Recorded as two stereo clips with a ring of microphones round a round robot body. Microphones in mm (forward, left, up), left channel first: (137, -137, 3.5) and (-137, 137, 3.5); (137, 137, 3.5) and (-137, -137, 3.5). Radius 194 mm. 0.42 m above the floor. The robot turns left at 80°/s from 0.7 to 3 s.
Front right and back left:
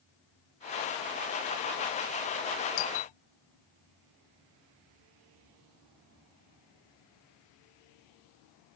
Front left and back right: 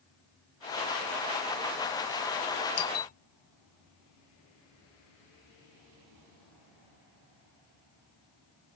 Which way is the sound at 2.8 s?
5° right.